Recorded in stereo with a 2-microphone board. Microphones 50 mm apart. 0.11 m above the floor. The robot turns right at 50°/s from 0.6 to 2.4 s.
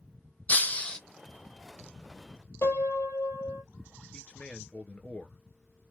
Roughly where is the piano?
Left.